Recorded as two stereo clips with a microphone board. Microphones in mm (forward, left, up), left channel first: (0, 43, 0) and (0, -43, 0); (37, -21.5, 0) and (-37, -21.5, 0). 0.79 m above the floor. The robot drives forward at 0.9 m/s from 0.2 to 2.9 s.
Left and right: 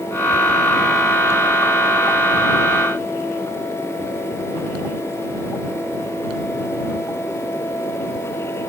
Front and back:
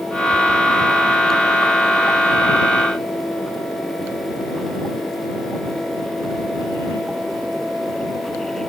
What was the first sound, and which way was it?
Only background noise.